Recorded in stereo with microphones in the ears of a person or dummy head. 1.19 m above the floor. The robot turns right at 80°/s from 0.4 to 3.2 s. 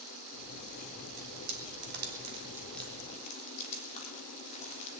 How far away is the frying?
About 3 m.